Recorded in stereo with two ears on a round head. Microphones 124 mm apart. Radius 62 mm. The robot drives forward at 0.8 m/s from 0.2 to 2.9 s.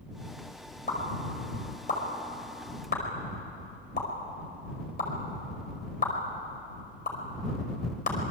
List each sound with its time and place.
0.9 s a pop: 55° left (ahead or behind), 5.5 m; by 8.2 s 70° left (ahead or behind), 5 m